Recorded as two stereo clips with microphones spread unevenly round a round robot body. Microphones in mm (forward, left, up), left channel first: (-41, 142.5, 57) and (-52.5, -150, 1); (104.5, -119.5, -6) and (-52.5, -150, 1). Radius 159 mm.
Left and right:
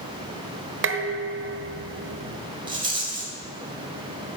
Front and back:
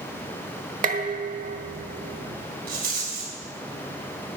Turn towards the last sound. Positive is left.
turn(degrees=-160)